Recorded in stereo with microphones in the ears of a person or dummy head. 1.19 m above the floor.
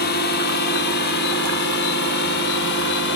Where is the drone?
55° left (ahead or behind); by 3.2 s 60° left (ahead or behind).